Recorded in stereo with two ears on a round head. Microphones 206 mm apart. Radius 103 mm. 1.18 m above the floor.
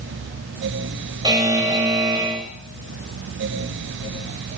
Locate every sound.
1.2 s a buzzer: 15° right (ahead or behind), 5 m